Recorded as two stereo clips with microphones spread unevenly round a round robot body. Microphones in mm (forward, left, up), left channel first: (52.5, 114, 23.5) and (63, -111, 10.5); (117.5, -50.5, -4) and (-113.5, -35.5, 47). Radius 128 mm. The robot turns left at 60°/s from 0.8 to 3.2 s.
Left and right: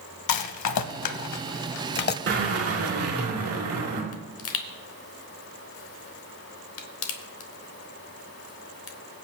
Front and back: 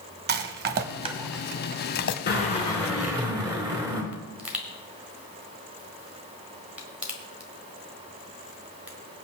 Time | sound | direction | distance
0.3 | a rattle | 120° left | 0.6 m
2.3 | a drill | 50° right | 3.5 m
4.1 | a pop | 85° left | 1.1 m